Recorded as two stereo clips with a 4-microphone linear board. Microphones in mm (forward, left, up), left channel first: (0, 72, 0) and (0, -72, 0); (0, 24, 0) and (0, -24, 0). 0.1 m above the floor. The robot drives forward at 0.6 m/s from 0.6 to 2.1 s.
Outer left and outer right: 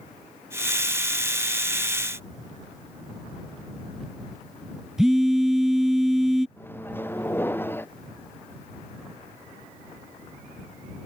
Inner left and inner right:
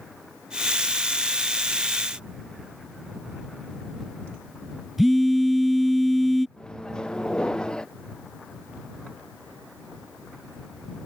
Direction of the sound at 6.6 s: 15° left (ahead or behind).